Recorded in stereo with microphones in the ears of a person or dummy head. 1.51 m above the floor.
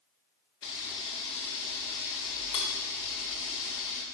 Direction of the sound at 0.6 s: 20° left (ahead or behind).